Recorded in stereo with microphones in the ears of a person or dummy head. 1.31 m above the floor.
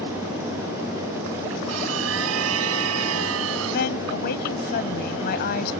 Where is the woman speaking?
60° left (ahead or behind).